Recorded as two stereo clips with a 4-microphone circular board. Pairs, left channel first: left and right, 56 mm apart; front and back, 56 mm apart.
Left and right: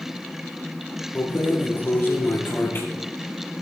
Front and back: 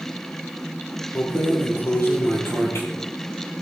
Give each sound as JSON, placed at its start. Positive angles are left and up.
{"t": 1.1, "sound": "keys jangling", "azimuth_deg": 40, "distance_m": 5.0}